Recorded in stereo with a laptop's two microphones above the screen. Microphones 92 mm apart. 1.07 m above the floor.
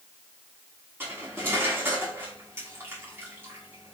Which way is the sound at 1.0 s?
25° right (ahead or behind).